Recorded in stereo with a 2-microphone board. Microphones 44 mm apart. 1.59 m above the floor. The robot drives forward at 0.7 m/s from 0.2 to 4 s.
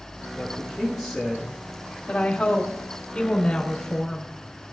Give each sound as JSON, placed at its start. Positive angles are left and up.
{"t": 0.4, "sound": "a man speaking", "side_deg": 0, "distance_m": 6.0}
{"t": 2.1, "sound": "a woman speaking", "side_deg": 30, "distance_m": 2.5}